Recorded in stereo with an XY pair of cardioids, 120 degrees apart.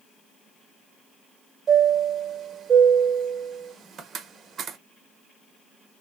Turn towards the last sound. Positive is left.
turn(degrees=-45)